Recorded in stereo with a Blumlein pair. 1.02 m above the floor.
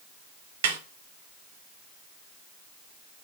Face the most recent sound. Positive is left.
turn(degrees=-55)